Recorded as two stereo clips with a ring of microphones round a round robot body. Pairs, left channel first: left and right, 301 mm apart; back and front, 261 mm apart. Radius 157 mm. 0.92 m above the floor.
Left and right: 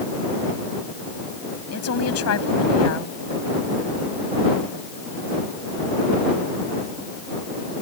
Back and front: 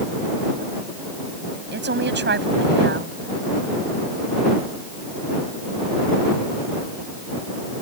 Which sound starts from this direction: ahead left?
A woman speaking, at 1.7 s.